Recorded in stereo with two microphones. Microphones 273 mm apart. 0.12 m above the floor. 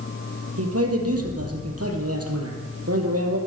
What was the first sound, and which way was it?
A man speaking, 60° right (ahead or behind).